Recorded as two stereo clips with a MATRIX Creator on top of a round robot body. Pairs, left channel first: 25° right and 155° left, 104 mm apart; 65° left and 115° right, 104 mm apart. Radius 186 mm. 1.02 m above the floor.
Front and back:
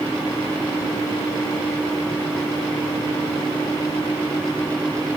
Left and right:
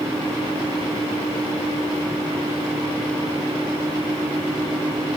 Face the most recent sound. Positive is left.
No sound to turn to.